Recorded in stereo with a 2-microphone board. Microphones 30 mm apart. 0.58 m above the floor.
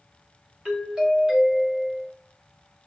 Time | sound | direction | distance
0.7 | a doorbell | 20° right (ahead or behind) | 1.2 m